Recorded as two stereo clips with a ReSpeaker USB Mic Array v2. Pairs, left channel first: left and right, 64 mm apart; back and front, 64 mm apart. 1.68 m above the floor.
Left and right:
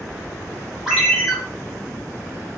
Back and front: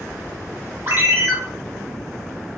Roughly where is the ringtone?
Ahead.